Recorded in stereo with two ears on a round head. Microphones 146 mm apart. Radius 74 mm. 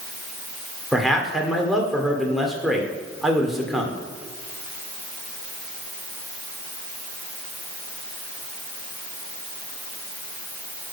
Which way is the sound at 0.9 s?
Centre (ahead or behind).